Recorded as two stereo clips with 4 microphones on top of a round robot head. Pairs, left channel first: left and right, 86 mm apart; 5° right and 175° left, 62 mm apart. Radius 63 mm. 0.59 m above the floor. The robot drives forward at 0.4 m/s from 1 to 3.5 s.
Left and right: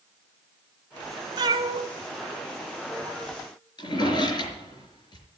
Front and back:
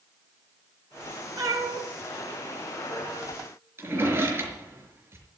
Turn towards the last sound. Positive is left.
turn(degrees=125)